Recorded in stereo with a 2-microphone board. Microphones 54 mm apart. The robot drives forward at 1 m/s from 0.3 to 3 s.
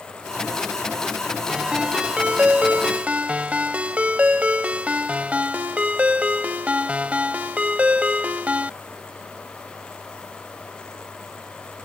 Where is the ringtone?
15° right (ahead or behind); by 8.7 s 25° right (ahead or behind).